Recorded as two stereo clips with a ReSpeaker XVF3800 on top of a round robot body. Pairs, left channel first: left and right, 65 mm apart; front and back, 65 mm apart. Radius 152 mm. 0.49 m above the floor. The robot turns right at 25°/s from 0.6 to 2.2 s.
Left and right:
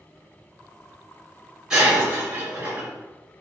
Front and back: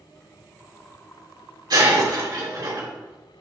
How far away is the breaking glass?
About 3 m.